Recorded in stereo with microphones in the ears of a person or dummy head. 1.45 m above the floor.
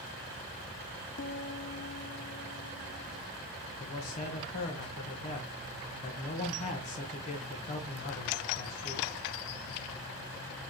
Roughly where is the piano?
Left.